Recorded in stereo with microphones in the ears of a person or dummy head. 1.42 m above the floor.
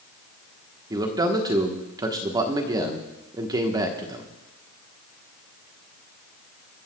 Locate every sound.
0.9 s a man speaking: 15° right (ahead or behind), 1.1 m